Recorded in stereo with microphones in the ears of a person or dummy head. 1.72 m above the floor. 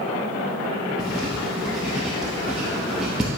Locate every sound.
1.0 s writing: centre (ahead or behind), 1.1 m